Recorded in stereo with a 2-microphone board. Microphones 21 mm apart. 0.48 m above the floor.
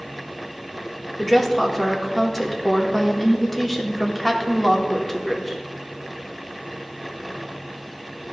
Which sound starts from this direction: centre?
A woman speaking, at 1.2 s.